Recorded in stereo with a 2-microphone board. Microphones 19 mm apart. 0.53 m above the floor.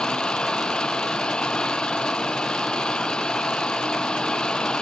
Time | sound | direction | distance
0.0 | an engine running | 55° left (ahead or behind) | ?